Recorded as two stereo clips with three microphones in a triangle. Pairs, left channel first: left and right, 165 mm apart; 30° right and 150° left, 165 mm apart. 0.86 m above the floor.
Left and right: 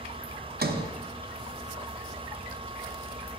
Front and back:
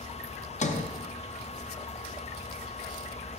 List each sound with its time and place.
0.6 s a sliding door: 75° right, 0.5 m